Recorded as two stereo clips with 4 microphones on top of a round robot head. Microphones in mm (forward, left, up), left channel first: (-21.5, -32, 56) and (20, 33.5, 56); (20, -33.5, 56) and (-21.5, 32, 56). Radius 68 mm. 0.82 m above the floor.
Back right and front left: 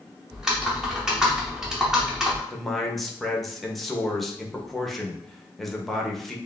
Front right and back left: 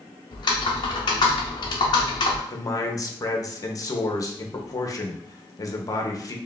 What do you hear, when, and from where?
0.3 s typing on a keyboard: 25° right, 0.6 m
2.5 s a man speaking: 35° right, 0.8 m